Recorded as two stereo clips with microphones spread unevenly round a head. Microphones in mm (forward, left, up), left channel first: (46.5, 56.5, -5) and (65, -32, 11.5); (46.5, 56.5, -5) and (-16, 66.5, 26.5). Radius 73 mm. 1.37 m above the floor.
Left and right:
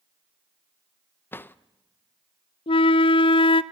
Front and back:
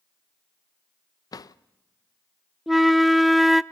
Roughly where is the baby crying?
I don't hear a baby crying.